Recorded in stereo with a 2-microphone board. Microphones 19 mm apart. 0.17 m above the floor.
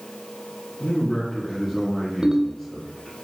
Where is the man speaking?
30° left (ahead or behind), 2.5 m.